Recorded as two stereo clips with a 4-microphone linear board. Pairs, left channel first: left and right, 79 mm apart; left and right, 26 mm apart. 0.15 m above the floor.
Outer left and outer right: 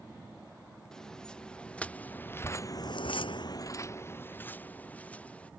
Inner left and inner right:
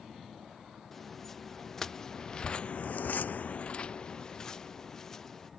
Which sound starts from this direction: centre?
Footsteps, at 0.9 s.